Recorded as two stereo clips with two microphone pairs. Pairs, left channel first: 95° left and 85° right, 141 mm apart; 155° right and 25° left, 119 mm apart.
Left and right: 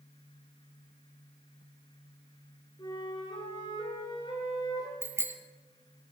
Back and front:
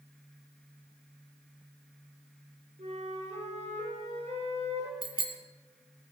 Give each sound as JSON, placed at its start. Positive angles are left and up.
{"t": 2.8, "sound": "a flute", "azimuth_deg": 40, "distance_m": 5.5}
{"t": 5.0, "sound": "a bicycle bell", "azimuth_deg": -15, "distance_m": 2.0}